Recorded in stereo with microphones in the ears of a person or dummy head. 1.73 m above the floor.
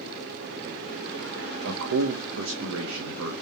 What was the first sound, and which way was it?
A man speaking, 80° right.